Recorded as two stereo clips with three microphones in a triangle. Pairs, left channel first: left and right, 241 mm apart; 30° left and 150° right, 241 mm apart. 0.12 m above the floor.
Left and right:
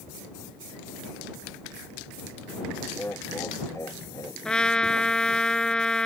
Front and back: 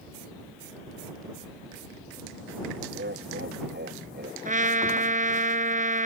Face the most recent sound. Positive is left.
turn(degrees=175)